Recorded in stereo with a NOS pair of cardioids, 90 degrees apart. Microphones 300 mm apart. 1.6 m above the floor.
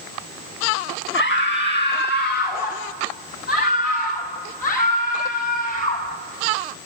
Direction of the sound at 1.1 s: 40° left.